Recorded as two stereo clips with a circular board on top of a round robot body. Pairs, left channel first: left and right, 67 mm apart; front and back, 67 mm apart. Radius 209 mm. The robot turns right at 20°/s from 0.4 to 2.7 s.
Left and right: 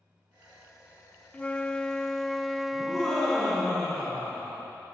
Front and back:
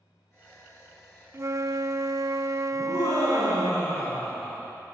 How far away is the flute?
About 0.7 m.